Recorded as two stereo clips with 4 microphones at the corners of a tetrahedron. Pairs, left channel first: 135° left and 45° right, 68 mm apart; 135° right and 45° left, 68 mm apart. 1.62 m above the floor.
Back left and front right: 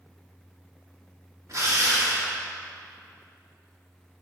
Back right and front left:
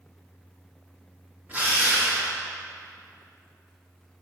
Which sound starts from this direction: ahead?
A drill, at 1.5 s.